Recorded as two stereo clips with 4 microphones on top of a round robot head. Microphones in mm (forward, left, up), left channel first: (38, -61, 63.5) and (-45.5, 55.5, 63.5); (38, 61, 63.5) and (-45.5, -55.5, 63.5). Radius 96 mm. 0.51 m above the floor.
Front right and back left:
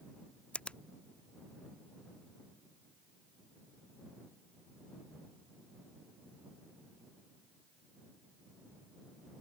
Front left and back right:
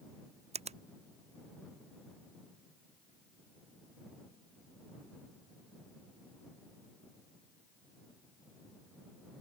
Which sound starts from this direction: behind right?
A finger snap, at 0.5 s.